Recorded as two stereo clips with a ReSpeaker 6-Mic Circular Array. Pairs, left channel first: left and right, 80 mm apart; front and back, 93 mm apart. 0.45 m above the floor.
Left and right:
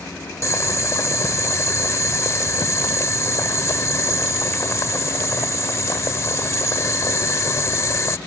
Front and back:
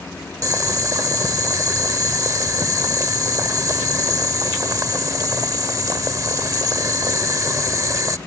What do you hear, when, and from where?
0.4 s boiling: 135° left